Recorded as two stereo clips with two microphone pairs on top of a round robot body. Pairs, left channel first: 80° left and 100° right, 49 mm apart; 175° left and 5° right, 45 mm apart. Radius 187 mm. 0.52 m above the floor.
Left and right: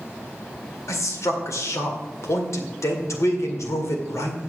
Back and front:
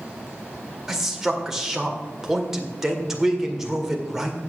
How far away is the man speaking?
About 2 m.